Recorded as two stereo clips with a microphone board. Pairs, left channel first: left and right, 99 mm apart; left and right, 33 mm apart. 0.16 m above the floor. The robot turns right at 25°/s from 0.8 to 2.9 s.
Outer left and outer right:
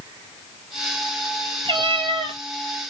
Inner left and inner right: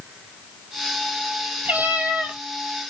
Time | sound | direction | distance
1.6 | a cat meowing | 65° right (ahead or behind) | 1.3 m